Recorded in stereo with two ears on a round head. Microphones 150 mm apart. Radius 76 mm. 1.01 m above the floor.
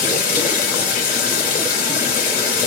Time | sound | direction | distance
0.0 | running water | 60° left (ahead or behind) | 2.5 m